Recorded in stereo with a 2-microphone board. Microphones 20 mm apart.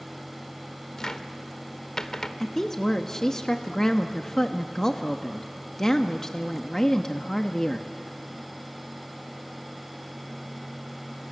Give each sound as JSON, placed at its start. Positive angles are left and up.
{"t": 1.0, "sound": "a cupboard door", "side_deg": 30, "distance_m": 1.1}
{"t": 2.4, "sound": "a woman speaking", "side_deg": 25, "distance_m": 1.0}